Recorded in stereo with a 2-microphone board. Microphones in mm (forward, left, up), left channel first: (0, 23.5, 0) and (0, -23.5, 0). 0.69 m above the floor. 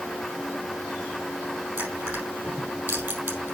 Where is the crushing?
50° right (ahead or behind), 4 m.